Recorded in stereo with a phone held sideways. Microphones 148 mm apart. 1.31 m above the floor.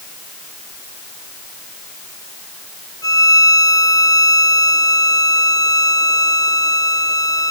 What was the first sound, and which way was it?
A violin, 25° left (ahead or behind).